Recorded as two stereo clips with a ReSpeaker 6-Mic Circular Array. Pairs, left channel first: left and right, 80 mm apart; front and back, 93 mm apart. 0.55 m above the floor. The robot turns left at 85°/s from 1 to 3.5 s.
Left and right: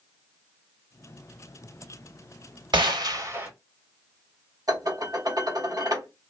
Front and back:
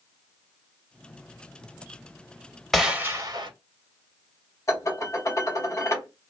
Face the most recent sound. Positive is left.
turn(degrees=-55)